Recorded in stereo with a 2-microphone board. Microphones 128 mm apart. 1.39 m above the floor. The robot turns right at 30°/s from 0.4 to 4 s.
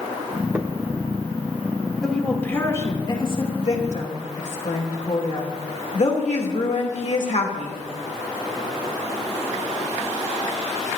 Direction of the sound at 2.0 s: 5° left.